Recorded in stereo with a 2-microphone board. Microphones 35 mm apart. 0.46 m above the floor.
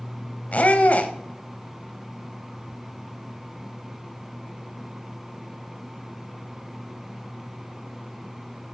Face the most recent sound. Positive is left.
turn(degrees=40)  # may be behind; listen again after turning